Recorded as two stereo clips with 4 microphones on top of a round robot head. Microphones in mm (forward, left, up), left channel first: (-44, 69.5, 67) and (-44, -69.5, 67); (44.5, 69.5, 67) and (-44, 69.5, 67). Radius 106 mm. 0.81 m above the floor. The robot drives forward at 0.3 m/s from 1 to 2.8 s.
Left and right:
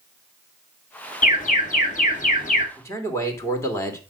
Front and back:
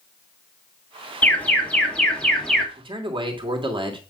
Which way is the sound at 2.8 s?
160° left.